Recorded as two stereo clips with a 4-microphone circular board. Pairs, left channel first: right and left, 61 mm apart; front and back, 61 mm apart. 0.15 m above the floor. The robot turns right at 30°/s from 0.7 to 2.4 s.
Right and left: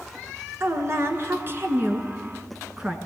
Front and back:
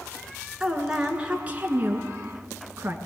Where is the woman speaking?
100° left, 2 m; by 3.0 s 150° left, 2 m.